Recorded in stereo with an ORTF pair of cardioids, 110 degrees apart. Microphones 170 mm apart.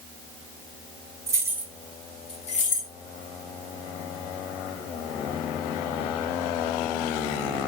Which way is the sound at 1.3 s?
20° right.